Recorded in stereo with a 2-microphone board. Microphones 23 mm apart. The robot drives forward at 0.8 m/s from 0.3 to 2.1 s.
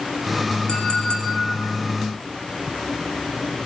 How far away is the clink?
About 4 m.